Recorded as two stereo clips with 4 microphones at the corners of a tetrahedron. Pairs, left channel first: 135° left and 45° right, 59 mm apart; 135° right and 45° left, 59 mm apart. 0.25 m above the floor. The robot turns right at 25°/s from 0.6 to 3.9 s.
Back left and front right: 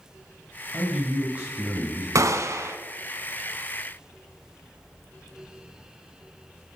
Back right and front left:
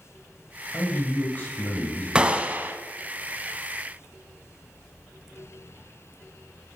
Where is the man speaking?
110° right, 1.4 m; by 2.0 s 80° right, 1.4 m.